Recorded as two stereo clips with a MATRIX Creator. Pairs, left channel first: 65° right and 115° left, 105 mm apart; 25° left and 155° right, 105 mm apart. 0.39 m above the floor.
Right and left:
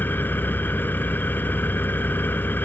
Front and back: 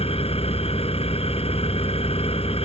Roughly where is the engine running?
Ahead.